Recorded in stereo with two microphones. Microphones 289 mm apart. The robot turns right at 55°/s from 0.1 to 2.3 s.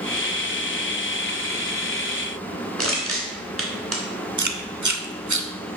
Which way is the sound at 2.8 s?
50° right (ahead or behind).